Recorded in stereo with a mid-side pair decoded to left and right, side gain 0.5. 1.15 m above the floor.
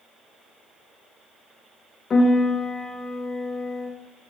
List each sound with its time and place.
2.1 s a piano: 35° left, 0.6 m